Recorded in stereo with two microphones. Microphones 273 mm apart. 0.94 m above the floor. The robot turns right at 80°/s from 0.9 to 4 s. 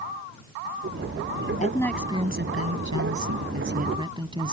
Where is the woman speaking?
155° left; by 4.5 s 15° right.